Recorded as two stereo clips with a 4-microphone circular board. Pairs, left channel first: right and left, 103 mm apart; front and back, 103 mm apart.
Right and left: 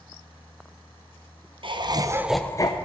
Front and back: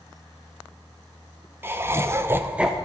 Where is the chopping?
No chopping in this recording.